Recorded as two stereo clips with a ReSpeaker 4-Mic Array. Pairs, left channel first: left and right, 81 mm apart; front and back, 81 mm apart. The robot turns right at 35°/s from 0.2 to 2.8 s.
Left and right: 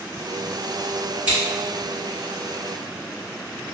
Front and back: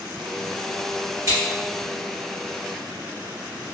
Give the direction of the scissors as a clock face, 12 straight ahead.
5 o'clock.